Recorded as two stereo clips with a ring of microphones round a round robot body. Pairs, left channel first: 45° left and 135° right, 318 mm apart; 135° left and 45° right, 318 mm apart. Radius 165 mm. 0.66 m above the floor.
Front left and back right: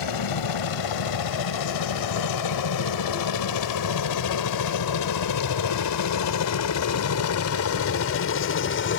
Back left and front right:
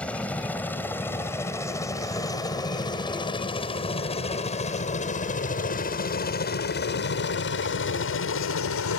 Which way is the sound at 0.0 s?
50° left.